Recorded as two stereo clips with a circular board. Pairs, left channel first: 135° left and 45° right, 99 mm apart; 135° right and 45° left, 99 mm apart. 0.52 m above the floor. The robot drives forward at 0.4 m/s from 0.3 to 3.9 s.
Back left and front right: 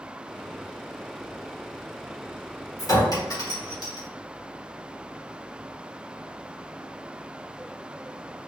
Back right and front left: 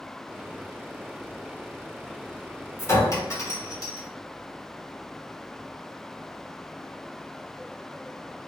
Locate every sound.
2.8 s a clink: 175° left, 0.9 m